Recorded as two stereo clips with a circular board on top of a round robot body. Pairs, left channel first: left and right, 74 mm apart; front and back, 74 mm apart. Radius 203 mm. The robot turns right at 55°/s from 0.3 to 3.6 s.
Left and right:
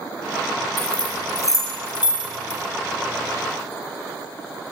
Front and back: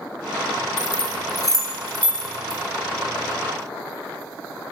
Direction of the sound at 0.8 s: 5° left.